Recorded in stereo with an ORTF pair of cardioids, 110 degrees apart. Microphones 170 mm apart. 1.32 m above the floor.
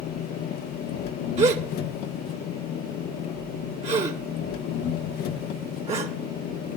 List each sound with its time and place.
0.0 s an engine running: 65° left, 1.1 m
1.4 s a gasp: 40° right, 1.8 m